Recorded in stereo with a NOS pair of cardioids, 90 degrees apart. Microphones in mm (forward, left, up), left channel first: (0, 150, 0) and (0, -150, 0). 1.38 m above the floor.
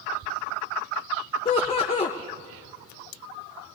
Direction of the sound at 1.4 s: 20° left.